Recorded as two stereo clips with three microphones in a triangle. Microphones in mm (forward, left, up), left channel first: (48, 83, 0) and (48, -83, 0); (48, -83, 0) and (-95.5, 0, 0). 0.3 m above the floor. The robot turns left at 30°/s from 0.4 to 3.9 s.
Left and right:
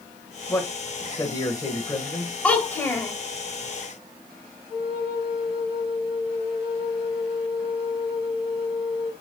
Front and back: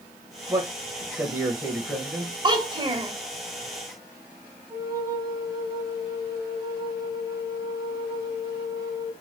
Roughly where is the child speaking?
Behind.